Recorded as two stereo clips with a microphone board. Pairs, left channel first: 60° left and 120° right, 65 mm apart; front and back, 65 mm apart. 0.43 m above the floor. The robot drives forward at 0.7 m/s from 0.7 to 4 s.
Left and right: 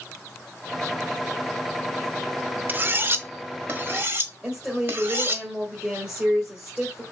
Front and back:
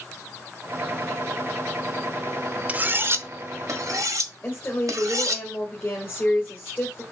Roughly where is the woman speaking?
Ahead right.